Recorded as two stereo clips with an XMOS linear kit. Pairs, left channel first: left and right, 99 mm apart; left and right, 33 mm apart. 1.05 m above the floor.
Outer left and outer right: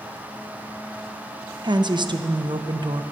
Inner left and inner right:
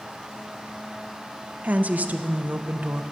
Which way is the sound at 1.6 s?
50° right (ahead or behind).